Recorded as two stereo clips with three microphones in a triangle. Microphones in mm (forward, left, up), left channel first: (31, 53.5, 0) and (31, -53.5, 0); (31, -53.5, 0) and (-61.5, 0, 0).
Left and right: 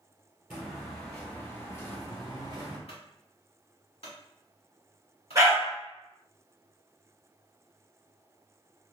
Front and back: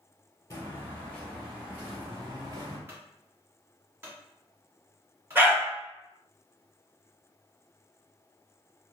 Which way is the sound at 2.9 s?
85° left.